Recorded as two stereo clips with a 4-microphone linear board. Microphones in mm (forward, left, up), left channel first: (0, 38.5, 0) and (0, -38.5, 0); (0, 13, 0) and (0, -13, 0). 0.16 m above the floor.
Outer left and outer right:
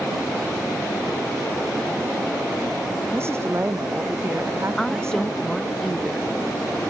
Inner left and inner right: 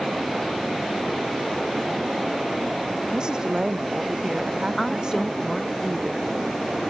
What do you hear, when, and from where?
3.1 s a woman speaking: 35° right (ahead or behind)
4.8 s a woman speaking: centre (ahead or behind)